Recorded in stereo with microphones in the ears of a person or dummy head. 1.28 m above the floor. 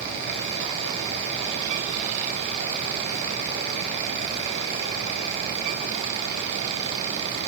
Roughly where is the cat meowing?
No cat meowing in this recording.